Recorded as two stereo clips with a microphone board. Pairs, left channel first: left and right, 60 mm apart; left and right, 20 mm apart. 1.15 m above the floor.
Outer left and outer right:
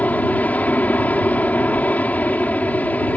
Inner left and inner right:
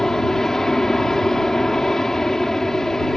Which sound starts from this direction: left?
An aircraft, at 0.0 s.